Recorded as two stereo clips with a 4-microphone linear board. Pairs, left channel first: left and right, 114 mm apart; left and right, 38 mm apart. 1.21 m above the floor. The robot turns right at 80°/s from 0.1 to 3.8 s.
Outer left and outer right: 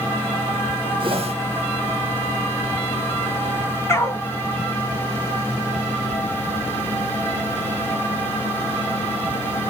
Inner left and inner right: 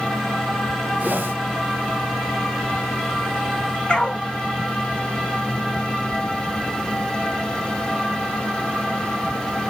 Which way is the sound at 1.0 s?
45° right (ahead or behind).